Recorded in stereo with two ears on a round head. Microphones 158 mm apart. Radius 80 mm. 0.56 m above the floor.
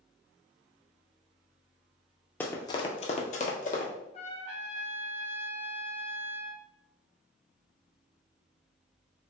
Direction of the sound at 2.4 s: 10° left (ahead or behind).